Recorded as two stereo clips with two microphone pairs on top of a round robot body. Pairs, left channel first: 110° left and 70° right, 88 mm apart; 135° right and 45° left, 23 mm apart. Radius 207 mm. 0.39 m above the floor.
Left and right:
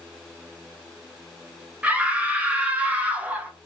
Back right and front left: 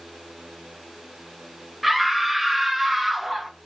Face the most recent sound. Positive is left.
turn(degrees=-20)